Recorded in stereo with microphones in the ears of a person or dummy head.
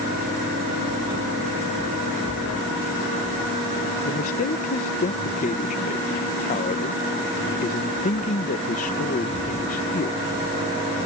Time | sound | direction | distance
4.0 | a man speaking | 35° left (ahead or behind) | ?